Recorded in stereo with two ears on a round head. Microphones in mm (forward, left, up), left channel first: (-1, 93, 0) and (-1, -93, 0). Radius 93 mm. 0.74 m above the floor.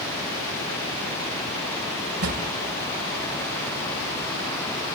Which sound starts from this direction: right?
A drawer, at 2.2 s.